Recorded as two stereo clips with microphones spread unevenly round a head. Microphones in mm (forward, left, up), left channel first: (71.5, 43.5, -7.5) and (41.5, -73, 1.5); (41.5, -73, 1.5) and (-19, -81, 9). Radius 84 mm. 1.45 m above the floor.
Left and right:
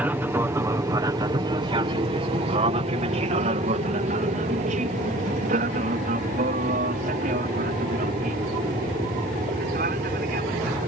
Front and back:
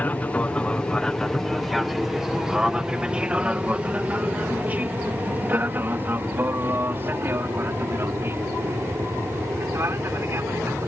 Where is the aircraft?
35° right; by 10.9 s 130° right.